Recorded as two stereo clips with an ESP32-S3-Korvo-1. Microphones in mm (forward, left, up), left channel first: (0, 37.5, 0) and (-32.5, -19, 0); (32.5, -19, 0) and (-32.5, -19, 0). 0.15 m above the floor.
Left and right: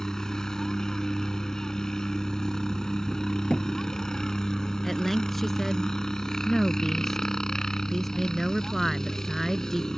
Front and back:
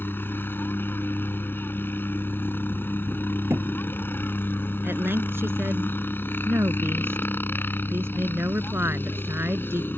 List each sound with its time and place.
0.0 s a helicopter: 15° right
3.5 s a thud: 135° left
4.8 s a woman speaking: 145° left